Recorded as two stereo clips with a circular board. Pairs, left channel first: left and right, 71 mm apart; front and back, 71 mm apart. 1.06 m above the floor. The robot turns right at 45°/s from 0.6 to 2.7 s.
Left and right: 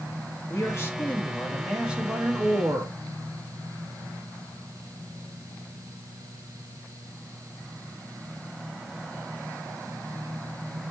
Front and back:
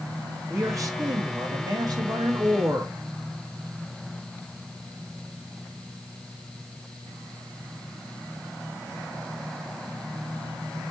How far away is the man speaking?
About 1.8 m.